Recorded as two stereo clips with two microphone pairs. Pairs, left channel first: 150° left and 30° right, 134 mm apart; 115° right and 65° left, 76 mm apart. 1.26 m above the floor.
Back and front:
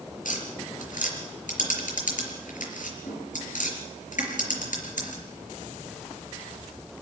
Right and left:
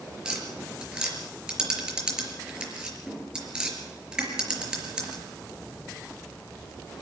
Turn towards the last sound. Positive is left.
turn(degrees=140)